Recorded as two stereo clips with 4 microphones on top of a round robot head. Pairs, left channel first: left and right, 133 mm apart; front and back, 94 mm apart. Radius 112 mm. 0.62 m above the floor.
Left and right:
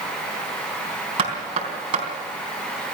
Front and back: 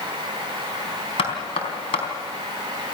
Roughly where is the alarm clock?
I don't hear an alarm clock.